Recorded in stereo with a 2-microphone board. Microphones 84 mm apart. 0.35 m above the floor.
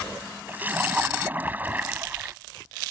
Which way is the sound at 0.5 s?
20° right (ahead or behind).